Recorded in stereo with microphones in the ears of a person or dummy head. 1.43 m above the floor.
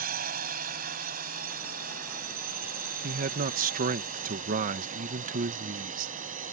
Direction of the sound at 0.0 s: 45° right (ahead or behind).